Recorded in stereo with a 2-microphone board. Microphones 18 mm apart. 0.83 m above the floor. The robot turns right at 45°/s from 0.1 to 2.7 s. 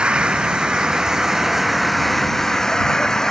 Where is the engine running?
85° right; by 3.3 s 30° left.